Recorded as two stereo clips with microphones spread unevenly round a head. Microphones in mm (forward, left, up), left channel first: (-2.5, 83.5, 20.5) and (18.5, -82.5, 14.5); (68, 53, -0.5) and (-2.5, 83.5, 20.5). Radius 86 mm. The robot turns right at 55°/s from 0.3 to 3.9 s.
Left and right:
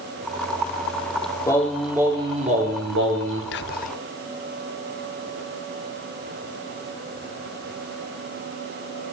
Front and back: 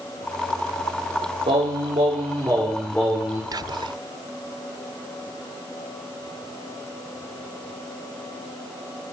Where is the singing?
170° left, 3.5 m; by 3.4 s 85° right, 3.5 m.